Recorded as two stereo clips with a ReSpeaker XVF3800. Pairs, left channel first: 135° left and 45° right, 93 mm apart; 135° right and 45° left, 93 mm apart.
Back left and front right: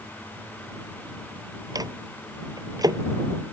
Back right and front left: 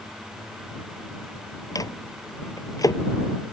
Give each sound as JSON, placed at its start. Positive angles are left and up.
{"t": 1.8, "sound": "a microwave", "azimuth_deg": -90}